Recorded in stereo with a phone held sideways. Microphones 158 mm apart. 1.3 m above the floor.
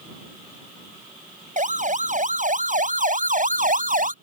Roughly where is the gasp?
No gasp in this recording.